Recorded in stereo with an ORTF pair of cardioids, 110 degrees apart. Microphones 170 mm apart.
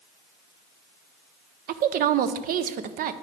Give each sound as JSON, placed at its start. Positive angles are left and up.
{"t": 1.7, "sound": "a woman speaking", "azimuth_deg": -60, "distance_m": 0.6}